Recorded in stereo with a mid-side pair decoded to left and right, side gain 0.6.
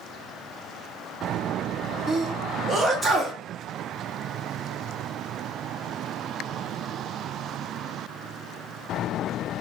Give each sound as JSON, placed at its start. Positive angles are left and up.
{"t": 2.1, "sound": "a sneeze", "azimuth_deg": -15, "distance_m": 1.8}